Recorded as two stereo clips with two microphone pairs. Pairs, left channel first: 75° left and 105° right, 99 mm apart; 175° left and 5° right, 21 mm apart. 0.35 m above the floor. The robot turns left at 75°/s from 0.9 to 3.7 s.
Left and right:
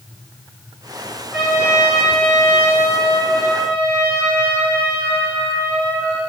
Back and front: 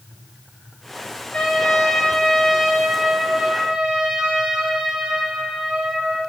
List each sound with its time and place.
1.3 s a trumpet: 175° left, 4 m; by 6.2 s 5° right, 4 m